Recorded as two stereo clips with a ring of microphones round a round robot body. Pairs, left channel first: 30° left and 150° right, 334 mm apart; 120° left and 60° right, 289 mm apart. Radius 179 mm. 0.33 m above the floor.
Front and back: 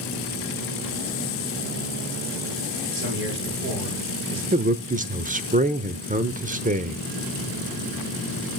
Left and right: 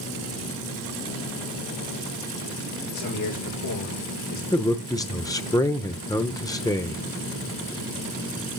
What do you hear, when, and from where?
2.9 s a man speaking: 155° left, 7.5 m
4.5 s a man speaking: straight behind, 0.9 m